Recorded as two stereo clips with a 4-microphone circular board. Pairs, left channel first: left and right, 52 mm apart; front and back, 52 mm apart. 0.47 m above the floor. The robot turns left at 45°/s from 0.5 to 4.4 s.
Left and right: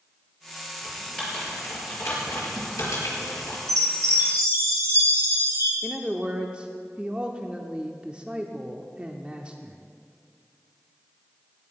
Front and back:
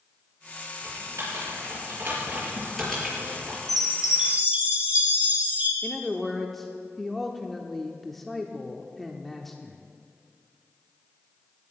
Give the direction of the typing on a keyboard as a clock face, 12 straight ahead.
6 o'clock.